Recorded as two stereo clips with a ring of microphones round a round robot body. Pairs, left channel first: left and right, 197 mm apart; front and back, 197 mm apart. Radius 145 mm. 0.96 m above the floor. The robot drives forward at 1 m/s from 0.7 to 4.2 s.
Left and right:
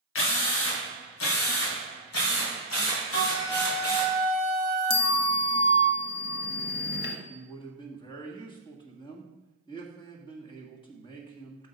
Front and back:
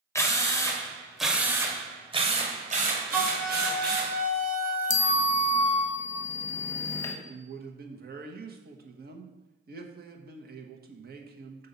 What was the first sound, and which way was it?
A drill, 75° left.